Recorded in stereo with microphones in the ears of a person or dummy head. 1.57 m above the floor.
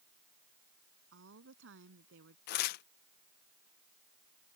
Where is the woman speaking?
65° right (ahead or behind).